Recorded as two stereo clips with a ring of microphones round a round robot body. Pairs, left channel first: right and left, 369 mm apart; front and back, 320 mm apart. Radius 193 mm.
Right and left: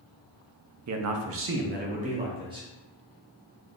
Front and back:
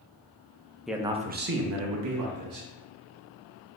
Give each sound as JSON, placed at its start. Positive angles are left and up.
{"t": 0.9, "sound": "a man speaking", "azimuth_deg": 90, "distance_m": 0.6}